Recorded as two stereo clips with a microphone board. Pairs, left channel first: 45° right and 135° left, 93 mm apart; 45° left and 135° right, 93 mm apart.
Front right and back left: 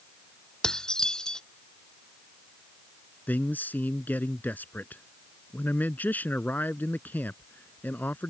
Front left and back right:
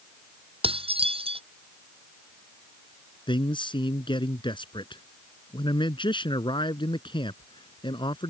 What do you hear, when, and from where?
0.6 s dishes clattering: 130° right
3.3 s a man speaking: 25° left